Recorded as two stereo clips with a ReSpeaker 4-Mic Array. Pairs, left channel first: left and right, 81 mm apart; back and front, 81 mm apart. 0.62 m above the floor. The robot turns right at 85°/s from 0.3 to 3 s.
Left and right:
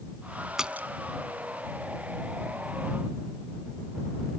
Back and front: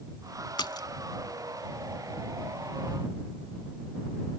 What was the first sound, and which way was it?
A splash, 175° right.